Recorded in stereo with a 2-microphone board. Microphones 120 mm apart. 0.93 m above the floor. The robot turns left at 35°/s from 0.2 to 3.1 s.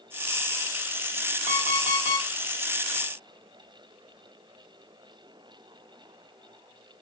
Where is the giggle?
I don't hear a giggle.